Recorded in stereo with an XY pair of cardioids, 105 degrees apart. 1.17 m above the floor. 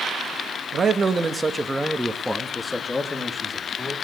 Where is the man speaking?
40° right, 1.5 m; by 4.0 s 35° left, 2.5 m.